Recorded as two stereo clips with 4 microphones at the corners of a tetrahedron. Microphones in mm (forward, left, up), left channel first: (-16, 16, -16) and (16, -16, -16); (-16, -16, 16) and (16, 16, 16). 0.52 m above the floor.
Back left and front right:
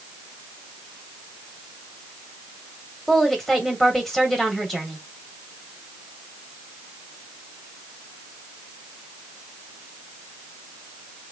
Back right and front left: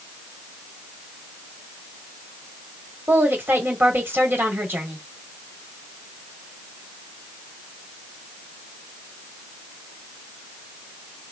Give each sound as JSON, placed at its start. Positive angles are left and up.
{"t": 3.1, "sound": "a woman speaking", "azimuth_deg": 55, "distance_m": 1.6}